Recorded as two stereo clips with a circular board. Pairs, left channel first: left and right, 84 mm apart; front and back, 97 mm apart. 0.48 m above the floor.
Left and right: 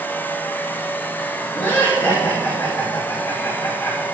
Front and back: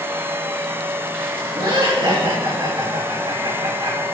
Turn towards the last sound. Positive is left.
turn(degrees=150)